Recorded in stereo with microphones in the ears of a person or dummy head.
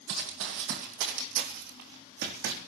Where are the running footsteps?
65° right (ahead or behind), 3 m.